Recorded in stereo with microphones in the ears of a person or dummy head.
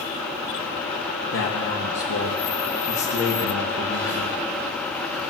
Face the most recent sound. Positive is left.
turn(degrees=55)  # may be behind; listen again after turning